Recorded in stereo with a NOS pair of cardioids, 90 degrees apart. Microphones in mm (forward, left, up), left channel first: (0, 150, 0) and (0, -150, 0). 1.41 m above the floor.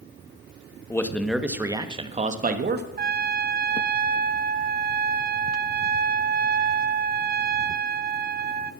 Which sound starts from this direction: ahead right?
A trumpet, at 3.0 s.